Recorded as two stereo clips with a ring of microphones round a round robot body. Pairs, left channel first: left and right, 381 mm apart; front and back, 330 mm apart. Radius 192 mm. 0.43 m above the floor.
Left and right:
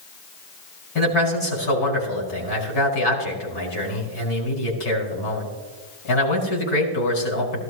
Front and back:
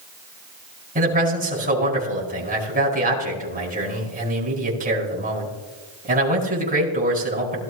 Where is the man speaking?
115° left, 5 m.